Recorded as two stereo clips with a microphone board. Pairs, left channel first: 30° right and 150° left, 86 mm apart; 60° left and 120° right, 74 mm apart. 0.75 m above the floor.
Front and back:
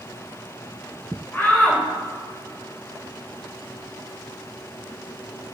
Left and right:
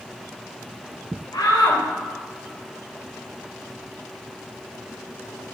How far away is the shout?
About 3 m.